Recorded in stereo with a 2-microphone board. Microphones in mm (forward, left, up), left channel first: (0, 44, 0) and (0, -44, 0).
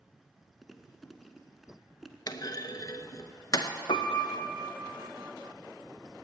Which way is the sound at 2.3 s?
50° left (ahead or behind).